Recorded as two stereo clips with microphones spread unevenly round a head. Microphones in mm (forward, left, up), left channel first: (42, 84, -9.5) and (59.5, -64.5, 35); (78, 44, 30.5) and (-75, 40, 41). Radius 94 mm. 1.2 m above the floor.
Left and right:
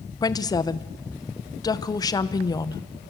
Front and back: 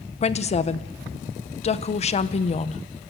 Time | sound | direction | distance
0.2 | a woman speaking | 40° left | 0.9 m